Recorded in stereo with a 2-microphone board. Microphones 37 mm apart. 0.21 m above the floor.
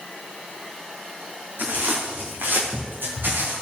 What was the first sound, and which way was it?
Footsteps, 70° right (ahead or behind).